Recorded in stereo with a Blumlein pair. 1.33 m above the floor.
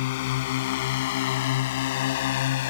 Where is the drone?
50° left; by 2.7 s 55° left.